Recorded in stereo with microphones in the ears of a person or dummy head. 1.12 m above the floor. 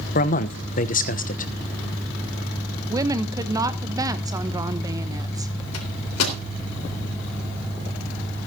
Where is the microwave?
85° left, 3.5 m.